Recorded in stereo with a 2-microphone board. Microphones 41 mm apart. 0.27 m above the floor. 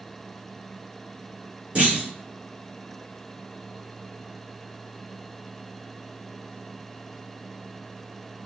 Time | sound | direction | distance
1.8 | a clunk | 30° right (ahead or behind) | 2.5 m